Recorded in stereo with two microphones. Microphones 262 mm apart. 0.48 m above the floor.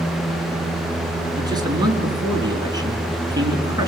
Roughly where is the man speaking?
Centre.